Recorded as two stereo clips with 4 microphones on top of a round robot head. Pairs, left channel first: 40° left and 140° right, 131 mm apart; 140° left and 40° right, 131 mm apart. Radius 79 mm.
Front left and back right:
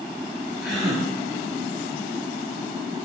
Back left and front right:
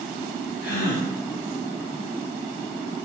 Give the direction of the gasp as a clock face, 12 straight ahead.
8 o'clock.